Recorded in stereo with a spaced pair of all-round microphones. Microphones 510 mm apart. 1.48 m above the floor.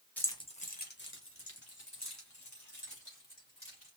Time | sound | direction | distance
0.2 | keys jangling | 5° left (ahead or behind) | 0.9 m